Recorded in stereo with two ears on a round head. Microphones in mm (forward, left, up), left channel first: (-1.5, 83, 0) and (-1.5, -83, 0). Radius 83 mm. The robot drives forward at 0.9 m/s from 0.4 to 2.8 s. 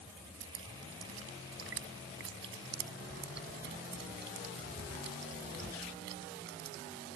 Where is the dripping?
85° right; by 6.8 s 65° right (ahead or behind).